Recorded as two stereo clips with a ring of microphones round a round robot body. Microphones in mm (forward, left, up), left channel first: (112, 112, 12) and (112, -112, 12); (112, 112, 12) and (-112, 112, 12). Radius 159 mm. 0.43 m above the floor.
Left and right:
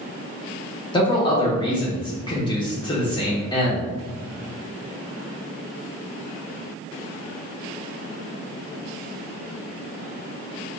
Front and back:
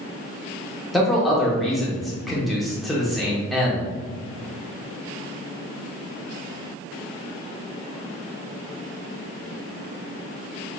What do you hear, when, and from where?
0.9 s a man speaking: 90° left, 0.7 m